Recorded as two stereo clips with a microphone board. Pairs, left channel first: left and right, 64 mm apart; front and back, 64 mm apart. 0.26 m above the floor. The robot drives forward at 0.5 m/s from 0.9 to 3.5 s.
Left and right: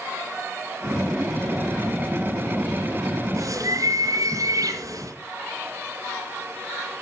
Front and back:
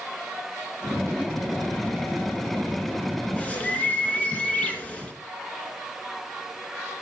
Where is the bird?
65° right, 3 m.